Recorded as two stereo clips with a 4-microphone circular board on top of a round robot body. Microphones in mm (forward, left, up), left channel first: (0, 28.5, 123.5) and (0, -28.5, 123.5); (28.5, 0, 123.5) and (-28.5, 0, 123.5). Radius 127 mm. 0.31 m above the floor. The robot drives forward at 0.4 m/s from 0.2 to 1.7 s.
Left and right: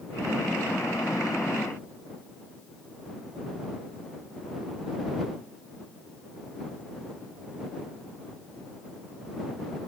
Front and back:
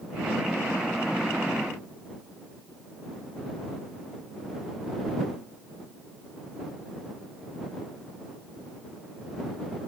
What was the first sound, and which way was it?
Only background noise.